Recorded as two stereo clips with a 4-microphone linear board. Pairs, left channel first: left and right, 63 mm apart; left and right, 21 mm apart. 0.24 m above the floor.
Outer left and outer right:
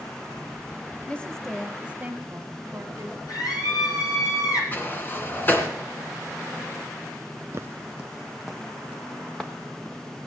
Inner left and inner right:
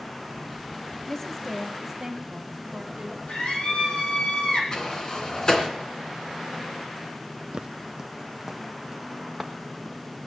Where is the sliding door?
30° left (ahead or behind), 2.5 m.